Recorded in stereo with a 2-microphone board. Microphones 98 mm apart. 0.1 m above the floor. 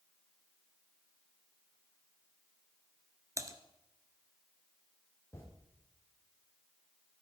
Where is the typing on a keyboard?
30° right (ahead or behind), 1.5 m.